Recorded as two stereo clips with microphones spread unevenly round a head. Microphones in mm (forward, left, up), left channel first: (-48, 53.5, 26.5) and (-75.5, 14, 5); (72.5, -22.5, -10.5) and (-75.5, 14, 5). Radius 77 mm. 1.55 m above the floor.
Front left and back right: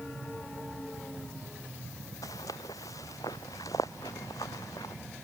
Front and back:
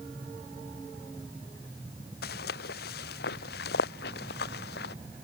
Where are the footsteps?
15° left.